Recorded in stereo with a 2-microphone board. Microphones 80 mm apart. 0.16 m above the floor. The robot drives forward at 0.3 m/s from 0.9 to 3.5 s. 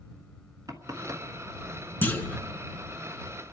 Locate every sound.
0.7 s knocking: 45° right (ahead or behind), 1.3 m
2.0 s a clunk: 25° left (ahead or behind), 1.3 m